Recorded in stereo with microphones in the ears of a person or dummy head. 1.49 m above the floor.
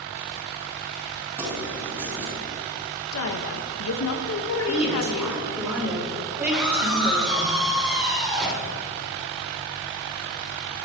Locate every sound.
1.4 s keys jangling: 15° right (ahead or behind), 8 m
3.1 s a woman speaking: 80° left, 2.0 m
4.7 s a woman speaking: 10° right (ahead or behind), 7 m
6.5 s a scream: 5° right (ahead or behind), 6.5 m